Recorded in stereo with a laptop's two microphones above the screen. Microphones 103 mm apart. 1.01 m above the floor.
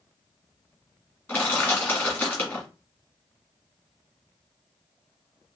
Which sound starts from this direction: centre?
Crushing, at 1.3 s.